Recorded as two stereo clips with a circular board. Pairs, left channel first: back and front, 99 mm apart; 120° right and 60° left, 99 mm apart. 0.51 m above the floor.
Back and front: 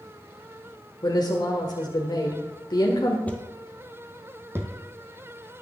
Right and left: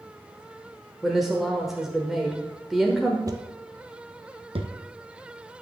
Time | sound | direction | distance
1.0 | a woman speaking | 145° left | 1.3 m
3.3 | footsteps | 105° left | 0.9 m